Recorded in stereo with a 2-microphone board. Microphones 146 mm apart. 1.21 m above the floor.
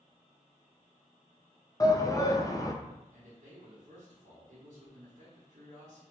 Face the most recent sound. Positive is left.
turn(degrees=-55)  # may be behind; listen again after turning